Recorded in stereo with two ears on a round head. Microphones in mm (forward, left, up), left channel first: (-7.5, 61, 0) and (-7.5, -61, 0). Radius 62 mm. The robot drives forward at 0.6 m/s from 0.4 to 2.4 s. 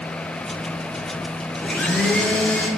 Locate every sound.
1.6 s a blender: 10° left (ahead or behind), 1.0 m; by 2.7 s 5° left (ahead or behind), 1.3 m